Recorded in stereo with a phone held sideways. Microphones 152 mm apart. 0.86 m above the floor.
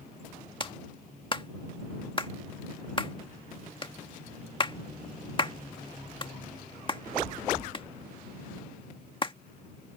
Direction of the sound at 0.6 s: 35° left (ahead or behind).